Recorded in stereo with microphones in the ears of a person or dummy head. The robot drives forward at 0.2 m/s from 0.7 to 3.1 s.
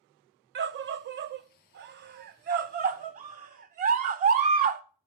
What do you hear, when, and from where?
0.6 s a scream: 50° right (ahead or behind), 0.5 m; by 4.8 s 40° right (ahead or behind), 0.6 m